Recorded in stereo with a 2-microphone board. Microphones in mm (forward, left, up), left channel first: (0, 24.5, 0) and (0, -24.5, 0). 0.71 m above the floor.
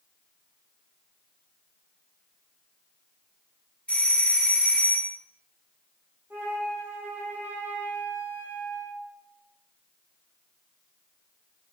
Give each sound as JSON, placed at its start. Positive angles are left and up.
{"t": 3.9, "sound": "a doorbell", "side_deg": 20, "distance_m": 0.9}
{"t": 6.3, "sound": "a flute", "side_deg": -35, "distance_m": 1.6}